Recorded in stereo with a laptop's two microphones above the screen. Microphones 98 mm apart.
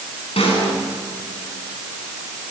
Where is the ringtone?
I don't hear a ringtone.